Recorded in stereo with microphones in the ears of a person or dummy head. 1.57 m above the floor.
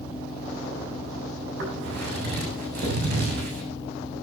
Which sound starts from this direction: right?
Footsteps, at 1.6 s.